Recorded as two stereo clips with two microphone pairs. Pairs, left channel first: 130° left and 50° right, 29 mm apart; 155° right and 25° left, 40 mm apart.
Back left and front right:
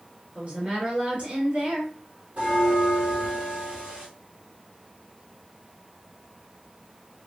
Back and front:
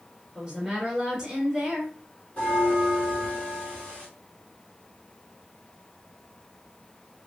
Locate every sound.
0.3 s a woman speaking: 65° right, 2.5 m
2.4 s a bell: 95° right, 3 m